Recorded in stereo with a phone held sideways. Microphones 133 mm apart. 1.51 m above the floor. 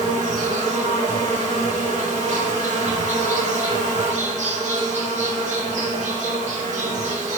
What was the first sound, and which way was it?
An insect, 60° right (ahead or behind).